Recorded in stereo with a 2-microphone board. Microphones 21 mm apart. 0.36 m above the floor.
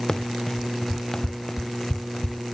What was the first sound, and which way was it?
Running footsteps, 30° left (ahead or behind).